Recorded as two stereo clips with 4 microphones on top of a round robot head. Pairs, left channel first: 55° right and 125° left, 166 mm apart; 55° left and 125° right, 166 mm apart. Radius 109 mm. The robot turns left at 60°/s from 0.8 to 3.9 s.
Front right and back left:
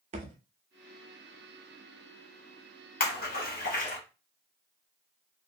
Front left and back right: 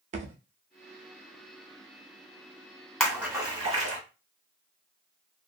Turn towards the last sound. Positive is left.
turn(degrees=-90)